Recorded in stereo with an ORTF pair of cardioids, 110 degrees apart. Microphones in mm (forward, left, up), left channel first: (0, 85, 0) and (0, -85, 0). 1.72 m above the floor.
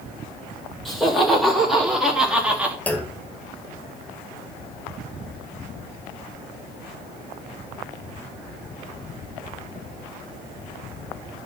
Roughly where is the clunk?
Ahead.